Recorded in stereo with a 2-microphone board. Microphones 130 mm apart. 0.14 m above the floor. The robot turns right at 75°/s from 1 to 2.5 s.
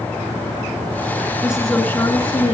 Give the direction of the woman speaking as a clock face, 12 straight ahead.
1 o'clock.